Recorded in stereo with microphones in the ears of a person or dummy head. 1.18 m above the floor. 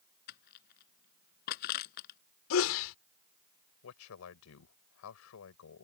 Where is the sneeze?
75° left (ahead or behind).